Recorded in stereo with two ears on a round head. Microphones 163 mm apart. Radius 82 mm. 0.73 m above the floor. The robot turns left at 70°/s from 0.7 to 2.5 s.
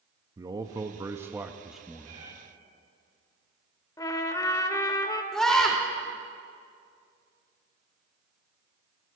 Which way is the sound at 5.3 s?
5° left (ahead or behind).